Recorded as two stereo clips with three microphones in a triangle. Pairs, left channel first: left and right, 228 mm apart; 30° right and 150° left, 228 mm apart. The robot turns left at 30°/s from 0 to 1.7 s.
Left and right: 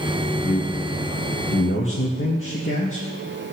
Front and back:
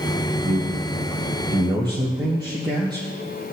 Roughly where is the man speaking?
Behind left.